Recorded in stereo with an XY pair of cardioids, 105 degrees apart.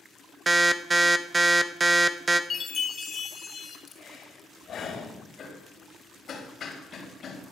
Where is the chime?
40° left, 1.8 m.